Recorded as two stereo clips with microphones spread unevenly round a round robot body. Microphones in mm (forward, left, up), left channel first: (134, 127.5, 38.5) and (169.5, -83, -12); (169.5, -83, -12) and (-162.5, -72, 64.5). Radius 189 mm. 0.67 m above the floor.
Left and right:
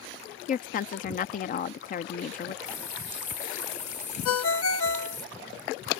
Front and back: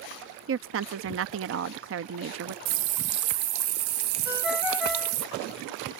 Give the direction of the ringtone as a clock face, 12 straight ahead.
9 o'clock.